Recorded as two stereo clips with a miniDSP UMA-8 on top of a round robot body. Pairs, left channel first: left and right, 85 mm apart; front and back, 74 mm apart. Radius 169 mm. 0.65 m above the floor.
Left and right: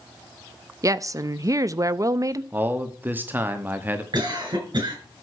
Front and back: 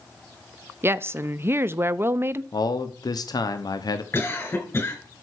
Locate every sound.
0.8 s a woman speaking: 130° right, 0.7 m
2.5 s a man speaking: 25° right, 1.2 m
4.1 s a cough: 55° right, 6 m